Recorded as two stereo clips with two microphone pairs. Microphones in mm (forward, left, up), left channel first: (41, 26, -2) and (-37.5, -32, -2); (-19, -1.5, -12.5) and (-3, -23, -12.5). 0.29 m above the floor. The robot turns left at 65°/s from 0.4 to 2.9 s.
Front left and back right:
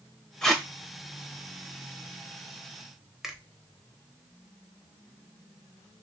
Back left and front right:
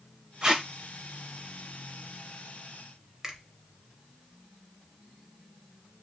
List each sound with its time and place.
0.4 s tape being pulled: 40° right, 0.6 m; by 0.7 s 55° right, 0.6 m
3.2 s a finger snap: 65° right, 0.7 m